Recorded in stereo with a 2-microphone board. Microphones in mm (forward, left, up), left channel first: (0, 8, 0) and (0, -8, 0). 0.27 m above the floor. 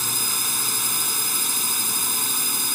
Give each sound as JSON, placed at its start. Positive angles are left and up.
{"t": 0.0, "sound": "a drone", "side_deg": -10}